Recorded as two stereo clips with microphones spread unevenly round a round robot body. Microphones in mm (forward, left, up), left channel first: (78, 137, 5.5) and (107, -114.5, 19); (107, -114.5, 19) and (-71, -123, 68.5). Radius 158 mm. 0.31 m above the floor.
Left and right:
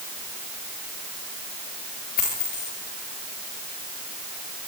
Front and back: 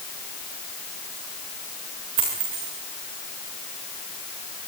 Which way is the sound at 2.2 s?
160° left.